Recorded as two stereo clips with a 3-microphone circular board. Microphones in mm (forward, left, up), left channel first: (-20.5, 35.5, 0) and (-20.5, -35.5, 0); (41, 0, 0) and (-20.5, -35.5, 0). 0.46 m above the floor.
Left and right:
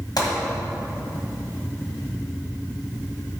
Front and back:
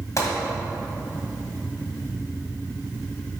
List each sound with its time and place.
0.2 s a gunshot: 70° left, 1.8 m